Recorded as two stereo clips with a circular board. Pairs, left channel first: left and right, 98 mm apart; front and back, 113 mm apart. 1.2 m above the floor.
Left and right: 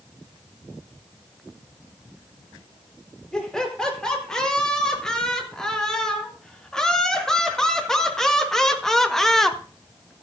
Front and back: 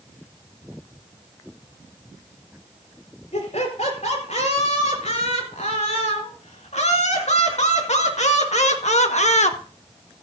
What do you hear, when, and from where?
3.3 s laughter: 10° left, 4.5 m; by 9.6 s 5° left, 1.1 m